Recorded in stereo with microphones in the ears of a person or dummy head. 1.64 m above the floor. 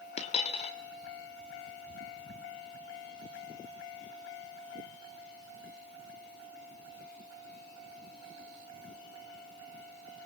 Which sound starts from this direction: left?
A dropped coin, at 0.2 s.